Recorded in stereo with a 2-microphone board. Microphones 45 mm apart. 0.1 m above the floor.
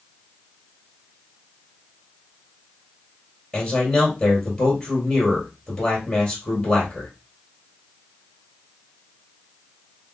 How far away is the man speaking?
About 2 m.